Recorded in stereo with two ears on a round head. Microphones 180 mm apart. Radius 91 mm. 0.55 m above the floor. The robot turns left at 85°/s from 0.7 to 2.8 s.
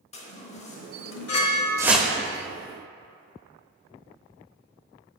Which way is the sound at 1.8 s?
15° right (ahead or behind).